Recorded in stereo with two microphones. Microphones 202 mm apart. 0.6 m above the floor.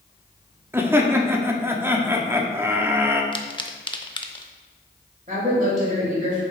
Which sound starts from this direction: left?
A pop, at 3.3 s.